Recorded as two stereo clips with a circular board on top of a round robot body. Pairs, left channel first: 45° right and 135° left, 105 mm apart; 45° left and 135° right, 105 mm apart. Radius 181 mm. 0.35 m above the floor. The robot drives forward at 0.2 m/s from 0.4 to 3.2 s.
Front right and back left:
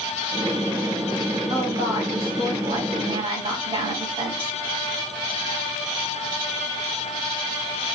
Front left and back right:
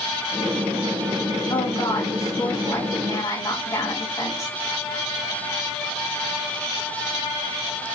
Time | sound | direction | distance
1.5 | a woman speaking | 95° left | 4 m